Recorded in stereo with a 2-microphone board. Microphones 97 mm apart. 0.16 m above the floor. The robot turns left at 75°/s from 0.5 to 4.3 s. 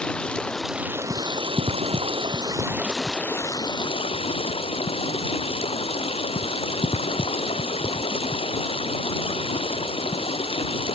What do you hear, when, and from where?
0.0 s running water: 10° left; by 11.0 s 85° left